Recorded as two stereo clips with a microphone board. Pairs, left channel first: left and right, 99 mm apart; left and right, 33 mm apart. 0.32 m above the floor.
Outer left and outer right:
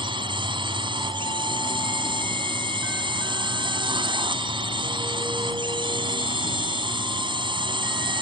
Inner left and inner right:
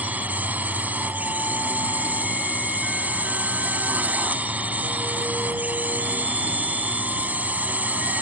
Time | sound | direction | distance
0.0 | a drone | 55° right (ahead or behind) | ?